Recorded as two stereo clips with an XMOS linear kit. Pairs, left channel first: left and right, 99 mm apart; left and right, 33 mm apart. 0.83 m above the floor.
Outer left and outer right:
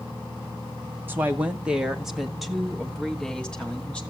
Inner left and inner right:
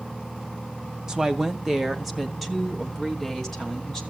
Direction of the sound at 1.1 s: 20° right (ahead or behind).